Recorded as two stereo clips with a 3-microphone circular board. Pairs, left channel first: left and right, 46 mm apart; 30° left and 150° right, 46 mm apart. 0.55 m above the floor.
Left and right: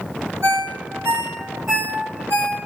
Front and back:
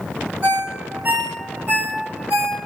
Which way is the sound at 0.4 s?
100° right.